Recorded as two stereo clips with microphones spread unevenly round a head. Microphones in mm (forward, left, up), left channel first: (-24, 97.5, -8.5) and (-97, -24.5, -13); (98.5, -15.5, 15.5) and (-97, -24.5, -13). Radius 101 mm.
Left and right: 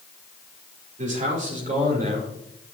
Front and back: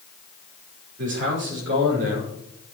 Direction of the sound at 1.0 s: 150° right.